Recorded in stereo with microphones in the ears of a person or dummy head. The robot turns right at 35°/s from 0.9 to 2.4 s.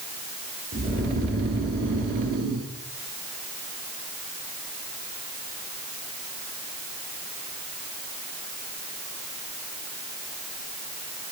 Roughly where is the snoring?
Behind right.